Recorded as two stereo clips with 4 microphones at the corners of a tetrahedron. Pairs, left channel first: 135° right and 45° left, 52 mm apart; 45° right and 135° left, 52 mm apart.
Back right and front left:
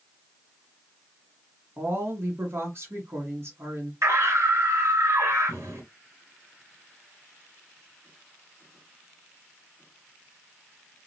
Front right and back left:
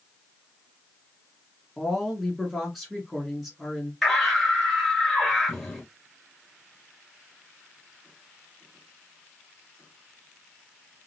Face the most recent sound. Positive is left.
turn(degrees=45)